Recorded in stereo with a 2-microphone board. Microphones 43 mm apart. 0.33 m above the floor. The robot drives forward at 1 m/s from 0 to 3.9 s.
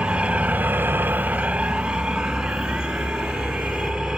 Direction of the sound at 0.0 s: 25° right (ahead or behind).